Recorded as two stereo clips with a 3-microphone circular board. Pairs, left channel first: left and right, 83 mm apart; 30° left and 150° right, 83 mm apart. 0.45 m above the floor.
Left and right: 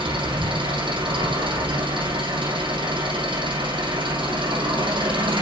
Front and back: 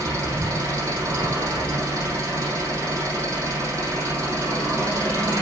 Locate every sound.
0.0 s an engine running: 95° right, 6.5 m